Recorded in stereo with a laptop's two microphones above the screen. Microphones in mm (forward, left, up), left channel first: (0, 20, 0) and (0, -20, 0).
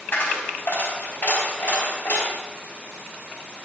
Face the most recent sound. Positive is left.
turn(degrees=50)  # may be behind; listen again after turning